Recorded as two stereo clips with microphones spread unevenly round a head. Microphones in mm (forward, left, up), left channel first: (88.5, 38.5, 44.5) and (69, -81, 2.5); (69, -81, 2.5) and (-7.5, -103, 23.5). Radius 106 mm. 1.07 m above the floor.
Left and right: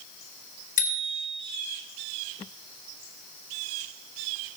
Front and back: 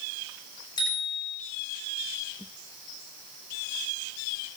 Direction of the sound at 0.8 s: 75° left.